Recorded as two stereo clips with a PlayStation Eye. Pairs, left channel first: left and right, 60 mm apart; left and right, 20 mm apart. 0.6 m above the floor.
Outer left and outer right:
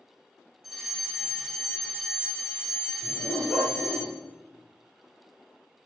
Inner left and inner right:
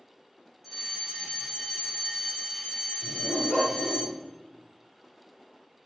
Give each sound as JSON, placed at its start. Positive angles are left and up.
{"t": 0.6, "sound": "a fire alarm", "side_deg": -5, "distance_m": 7.5}
{"t": 3.0, "sound": "a dog barking", "side_deg": 35, "distance_m": 4.0}